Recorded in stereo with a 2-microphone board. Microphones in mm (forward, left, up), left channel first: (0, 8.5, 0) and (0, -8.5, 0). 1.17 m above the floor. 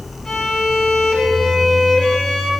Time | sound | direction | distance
0.2 | a violin | 50° left (ahead or behind) | 8 m